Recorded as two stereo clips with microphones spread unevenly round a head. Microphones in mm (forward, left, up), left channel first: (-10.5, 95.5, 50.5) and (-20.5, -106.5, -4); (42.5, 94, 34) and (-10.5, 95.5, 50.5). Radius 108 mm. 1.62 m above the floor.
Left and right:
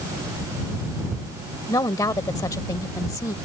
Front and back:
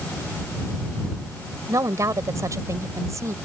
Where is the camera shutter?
No camera shutter in this recording.